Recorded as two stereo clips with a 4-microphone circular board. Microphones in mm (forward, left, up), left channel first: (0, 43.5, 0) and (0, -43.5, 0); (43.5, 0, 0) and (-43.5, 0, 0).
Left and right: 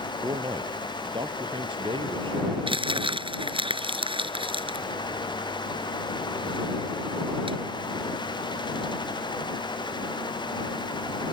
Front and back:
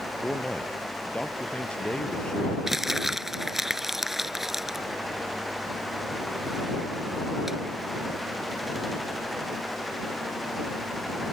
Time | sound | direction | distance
0.2 | a man speaking | 75° right | ?
2.7 | crumpling | 95° right | ?